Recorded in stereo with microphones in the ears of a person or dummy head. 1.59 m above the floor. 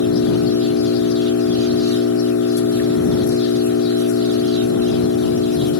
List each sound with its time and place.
0.0 s an engine running: 85° left